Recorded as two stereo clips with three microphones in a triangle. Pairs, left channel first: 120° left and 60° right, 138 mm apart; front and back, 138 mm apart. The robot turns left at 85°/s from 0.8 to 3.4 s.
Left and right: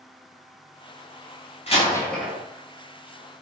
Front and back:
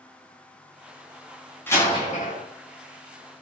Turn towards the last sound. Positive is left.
turn(degrees=-70)